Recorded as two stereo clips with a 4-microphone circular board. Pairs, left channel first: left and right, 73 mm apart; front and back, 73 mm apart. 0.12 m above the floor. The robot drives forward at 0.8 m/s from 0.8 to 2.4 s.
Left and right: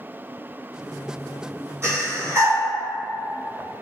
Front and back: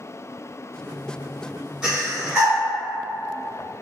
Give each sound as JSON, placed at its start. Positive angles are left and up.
{"t": 1.8, "sound": "breathing", "azimuth_deg": -105, "distance_m": 2.0}